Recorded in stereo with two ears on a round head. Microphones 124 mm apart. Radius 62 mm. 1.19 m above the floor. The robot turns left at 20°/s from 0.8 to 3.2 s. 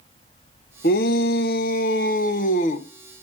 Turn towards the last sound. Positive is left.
turn(degrees=50)